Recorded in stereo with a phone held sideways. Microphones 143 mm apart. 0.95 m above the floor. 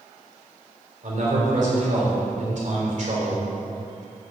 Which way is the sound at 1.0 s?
60° right (ahead or behind).